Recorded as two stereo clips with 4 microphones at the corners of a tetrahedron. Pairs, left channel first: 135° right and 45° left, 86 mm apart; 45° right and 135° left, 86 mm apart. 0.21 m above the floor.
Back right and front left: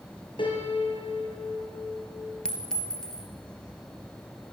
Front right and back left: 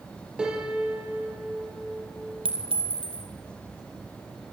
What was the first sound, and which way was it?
A piano, 145° right.